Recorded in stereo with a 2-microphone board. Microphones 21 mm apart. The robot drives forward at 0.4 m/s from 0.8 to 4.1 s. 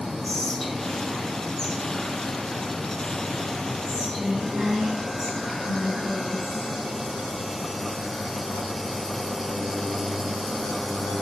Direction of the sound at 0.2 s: 15° left (ahead or behind).